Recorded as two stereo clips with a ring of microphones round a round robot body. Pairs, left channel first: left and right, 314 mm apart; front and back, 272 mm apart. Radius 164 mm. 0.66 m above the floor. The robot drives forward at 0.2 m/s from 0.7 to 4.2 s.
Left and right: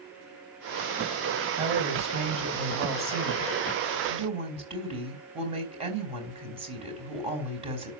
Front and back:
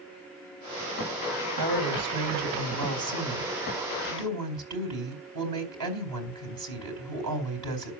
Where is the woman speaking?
160° right, 3.5 m; by 7.9 s 165° right, 4 m.